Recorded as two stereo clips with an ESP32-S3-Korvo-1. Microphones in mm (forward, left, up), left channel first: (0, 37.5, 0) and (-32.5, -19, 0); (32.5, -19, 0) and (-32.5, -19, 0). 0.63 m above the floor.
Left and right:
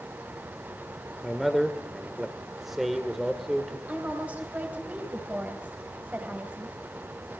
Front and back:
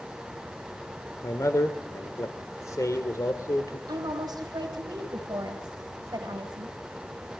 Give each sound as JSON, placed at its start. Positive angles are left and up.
{"t": 1.2, "sound": "a man speaking", "azimuth_deg": -35, "distance_m": 1.9}
{"t": 3.9, "sound": "a woman speaking", "azimuth_deg": 170, "distance_m": 3.5}